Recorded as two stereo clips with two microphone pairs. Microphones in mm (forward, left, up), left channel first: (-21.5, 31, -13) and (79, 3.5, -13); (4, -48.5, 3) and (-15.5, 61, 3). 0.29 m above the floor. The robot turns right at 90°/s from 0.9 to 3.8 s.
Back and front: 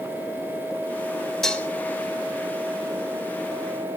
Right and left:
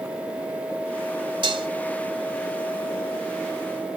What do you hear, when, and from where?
1.4 s dishes clattering: 75° left, 0.9 m; by 1.7 s 100° left, 0.9 m